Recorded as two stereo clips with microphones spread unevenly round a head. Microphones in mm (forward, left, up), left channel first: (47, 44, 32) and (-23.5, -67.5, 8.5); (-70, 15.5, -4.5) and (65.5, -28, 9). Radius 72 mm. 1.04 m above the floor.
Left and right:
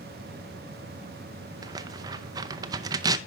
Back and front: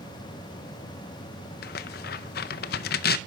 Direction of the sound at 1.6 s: 175° left.